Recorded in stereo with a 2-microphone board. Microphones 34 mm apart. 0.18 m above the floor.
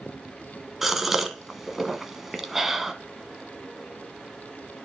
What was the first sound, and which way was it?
A gasp, 10° right (ahead or behind).